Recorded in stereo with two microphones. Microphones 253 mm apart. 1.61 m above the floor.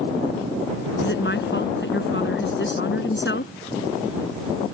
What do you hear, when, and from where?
1.0 s a woman speaking: 50° left (ahead or behind)